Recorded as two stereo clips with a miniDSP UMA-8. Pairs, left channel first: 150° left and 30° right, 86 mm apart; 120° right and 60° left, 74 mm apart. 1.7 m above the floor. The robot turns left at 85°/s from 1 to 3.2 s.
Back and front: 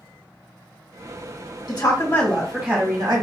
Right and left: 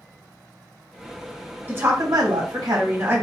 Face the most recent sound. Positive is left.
turn(degrees=-5)